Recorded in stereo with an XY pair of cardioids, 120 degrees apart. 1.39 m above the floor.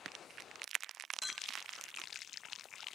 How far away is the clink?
About 0.8 m.